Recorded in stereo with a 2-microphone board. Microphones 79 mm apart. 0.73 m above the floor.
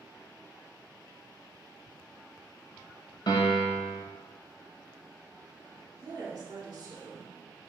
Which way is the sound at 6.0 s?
50° right (ahead or behind).